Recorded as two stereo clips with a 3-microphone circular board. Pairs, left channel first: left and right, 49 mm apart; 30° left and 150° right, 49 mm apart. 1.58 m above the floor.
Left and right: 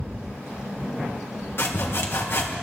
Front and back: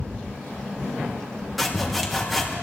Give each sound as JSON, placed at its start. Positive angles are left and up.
{"t": 1.6, "sound": "sawing", "azimuth_deg": 120, "distance_m": 1.4}